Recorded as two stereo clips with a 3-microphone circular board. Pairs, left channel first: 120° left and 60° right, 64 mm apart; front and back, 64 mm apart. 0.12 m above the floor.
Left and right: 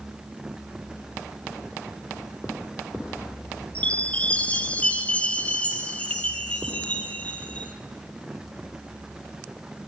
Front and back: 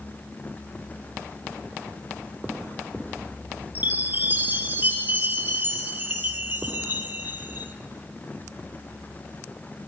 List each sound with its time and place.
3.8 s a chime: 170° left, 0.9 m